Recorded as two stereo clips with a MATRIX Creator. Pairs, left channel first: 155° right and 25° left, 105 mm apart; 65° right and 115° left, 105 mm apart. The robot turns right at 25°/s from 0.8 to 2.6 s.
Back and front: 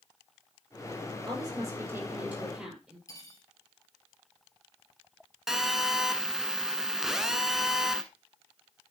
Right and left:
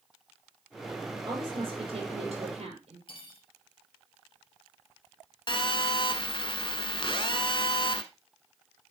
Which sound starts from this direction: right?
Cutlery clinking, at 3.1 s.